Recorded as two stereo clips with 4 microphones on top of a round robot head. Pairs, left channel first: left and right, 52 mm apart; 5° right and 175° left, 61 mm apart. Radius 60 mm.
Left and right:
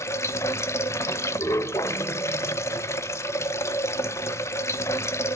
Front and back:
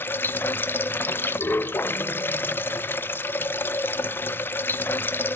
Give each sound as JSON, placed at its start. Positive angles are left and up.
{"t": 0.0, "sound": "running water", "azimuth_deg": 55, "distance_m": 0.7}